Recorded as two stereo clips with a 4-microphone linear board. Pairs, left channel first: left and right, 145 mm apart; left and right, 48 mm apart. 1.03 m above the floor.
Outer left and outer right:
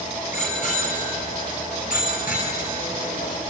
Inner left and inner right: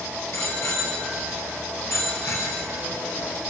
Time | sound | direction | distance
0.3 | a bicycle bell | 60° left (ahead or behind) | 7 m